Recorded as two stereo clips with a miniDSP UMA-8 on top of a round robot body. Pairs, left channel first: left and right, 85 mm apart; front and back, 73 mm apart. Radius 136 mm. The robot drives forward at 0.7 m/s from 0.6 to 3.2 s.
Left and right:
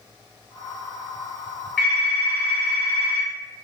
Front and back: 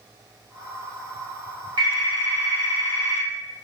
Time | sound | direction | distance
1.8 | a phone ringing | 175° left | 2 m